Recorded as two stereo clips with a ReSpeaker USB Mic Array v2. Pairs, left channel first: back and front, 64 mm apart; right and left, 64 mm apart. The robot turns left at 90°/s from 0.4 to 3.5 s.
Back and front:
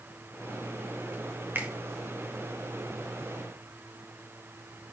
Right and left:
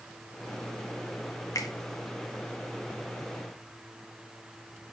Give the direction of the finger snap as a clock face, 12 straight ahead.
2 o'clock.